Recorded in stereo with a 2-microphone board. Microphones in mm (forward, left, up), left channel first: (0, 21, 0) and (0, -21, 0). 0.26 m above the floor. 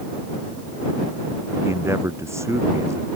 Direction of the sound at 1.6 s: 85° right.